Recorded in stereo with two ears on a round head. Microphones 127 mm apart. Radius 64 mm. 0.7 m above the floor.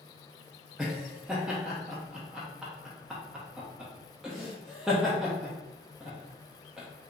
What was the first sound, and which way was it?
Laughter, 5° right (ahead or behind).